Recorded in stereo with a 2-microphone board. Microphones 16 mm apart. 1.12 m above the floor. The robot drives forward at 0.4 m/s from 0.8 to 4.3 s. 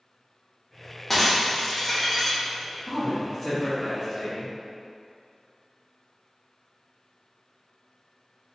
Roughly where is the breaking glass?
Centre.